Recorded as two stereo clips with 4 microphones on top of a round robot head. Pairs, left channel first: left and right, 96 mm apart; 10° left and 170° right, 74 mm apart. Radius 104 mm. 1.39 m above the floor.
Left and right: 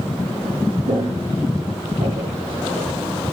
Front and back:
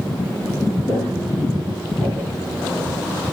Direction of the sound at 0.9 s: 80° right.